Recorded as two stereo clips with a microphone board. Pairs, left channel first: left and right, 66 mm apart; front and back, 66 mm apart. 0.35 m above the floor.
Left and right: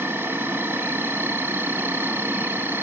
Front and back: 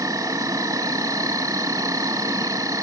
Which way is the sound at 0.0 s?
145° right.